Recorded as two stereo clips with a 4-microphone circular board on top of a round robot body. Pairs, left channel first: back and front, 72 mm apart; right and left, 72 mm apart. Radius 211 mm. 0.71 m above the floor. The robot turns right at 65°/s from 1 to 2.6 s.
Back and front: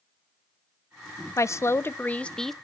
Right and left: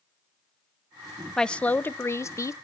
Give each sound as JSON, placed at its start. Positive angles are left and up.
{"t": 1.4, "sound": "a woman speaking", "azimuth_deg": -170, "distance_m": 0.5}